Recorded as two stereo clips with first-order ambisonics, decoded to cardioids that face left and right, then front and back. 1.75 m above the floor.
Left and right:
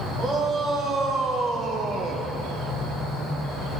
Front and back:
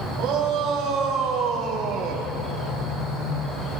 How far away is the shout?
About 2.5 m.